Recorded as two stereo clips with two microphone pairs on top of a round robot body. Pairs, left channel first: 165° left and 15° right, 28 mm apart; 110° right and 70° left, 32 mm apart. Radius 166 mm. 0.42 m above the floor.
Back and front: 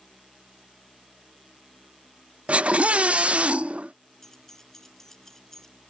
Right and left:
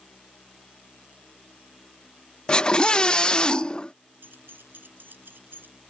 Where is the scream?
50° right.